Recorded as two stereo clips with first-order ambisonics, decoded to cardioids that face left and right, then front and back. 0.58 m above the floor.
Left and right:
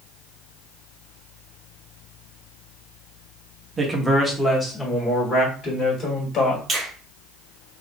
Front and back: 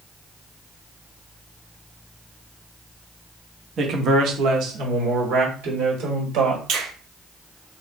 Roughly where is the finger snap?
Behind.